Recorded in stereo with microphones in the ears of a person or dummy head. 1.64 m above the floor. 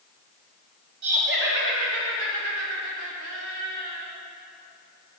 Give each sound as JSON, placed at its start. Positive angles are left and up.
{"t": 1.0, "sound": "laughter", "side_deg": -55, "distance_m": 1.8}